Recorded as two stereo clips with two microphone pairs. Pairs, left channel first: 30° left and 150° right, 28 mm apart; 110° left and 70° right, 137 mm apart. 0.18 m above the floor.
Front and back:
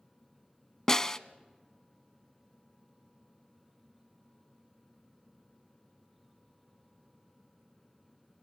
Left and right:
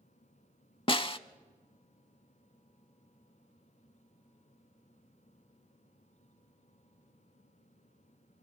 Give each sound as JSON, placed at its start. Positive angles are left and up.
{"t": 0.9, "sound": "a snare drum", "azimuth_deg": 85, "distance_m": 0.5}